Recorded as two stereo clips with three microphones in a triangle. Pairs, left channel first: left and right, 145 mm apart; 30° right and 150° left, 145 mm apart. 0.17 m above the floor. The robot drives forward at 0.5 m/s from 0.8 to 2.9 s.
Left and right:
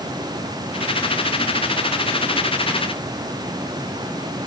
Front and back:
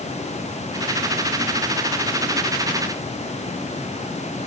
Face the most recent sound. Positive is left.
No sound to turn to.